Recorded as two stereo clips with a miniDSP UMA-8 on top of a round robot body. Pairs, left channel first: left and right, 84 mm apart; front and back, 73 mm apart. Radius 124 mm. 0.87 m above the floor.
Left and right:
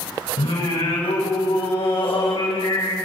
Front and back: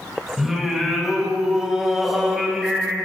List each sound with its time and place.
0.4 s singing: 95° left, 5.5 m